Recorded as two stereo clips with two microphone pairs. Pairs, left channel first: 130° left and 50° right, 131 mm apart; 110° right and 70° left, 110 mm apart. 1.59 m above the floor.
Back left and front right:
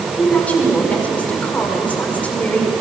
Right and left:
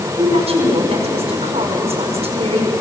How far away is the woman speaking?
About 5 m.